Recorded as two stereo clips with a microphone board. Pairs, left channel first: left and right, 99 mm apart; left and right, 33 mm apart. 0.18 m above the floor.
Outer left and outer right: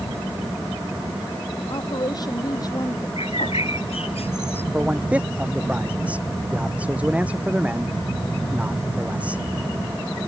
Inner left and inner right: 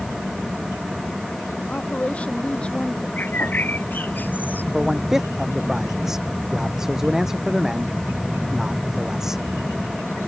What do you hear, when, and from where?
1.7 s a woman speaking: 45° left (ahead or behind); by 3.1 s 35° left (ahead or behind)
3.2 s a bird: 75° left (ahead or behind)
4.7 s a man speaking: 15° right (ahead or behind)